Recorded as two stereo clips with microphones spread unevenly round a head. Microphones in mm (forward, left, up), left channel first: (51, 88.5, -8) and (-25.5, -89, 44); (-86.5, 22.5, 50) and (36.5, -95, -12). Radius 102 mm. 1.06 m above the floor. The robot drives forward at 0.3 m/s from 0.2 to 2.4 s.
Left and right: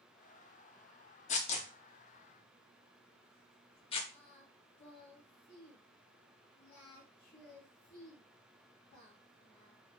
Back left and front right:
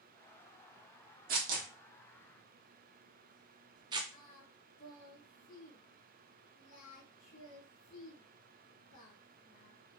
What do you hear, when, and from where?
1.3 s tearing paper: 10° left, 0.6 m; by 4.0 s 45° left, 0.5 m
4.1 s singing: 125° left, 2.0 m